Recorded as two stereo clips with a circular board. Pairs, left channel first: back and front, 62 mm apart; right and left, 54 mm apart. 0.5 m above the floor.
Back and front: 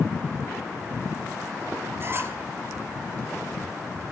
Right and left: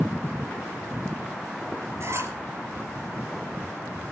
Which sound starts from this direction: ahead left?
A squeak, at 2.0 s.